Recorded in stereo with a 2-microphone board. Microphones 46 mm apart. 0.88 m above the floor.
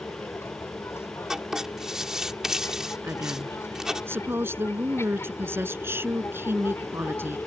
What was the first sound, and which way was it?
An aircraft, 70° left (ahead or behind).